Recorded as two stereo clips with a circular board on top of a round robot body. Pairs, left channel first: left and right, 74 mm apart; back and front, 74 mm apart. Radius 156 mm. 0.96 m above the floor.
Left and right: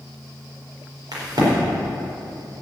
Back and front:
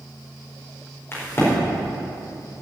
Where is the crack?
125° right, 4.5 m.